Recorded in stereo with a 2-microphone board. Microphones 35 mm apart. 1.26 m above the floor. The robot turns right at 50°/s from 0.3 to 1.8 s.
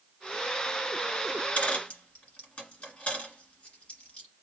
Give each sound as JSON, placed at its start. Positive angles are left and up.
{"t": 1.3, "sound": "a dropped coin", "side_deg": 50, "distance_m": 2.0}